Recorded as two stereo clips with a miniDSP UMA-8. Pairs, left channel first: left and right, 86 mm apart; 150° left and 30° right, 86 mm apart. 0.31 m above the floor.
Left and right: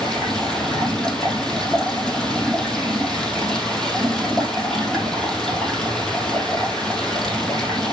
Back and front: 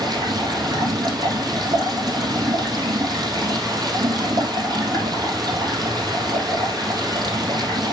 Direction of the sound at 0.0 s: 10° left.